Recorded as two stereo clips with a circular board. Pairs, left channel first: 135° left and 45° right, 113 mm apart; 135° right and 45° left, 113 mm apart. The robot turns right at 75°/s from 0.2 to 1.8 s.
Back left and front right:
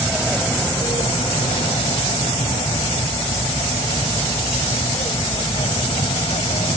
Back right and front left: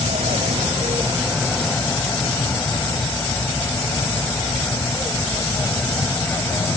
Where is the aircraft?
40° left; by 6.8 s 160° left.